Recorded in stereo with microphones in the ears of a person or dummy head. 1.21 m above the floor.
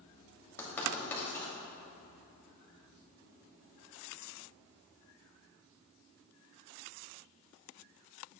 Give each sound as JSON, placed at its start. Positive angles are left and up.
{"t": 0.6, "sound": "writing", "side_deg": 10, "distance_m": 3.0}